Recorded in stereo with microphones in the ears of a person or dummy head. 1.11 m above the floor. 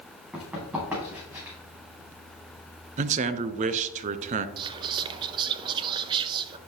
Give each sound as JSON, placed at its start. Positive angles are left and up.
{"t": 0.3, "sound": "running footsteps", "side_deg": -15, "distance_m": 4.0}
{"t": 3.0, "sound": "a man speaking", "side_deg": -35, "distance_m": 0.6}
{"t": 4.6, "sound": "whispering", "side_deg": -20, "distance_m": 0.5}